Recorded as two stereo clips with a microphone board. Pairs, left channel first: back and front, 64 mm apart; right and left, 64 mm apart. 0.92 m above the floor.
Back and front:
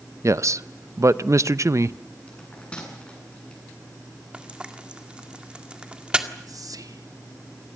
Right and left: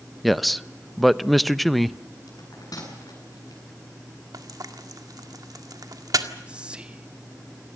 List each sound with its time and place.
0.2 s a man speaking: straight ahead, 0.6 m
2.3 s a bell: 110° right, 8.5 m
4.3 s frying: 75° left, 1.8 m
6.5 s whispering: 15° left, 1.0 m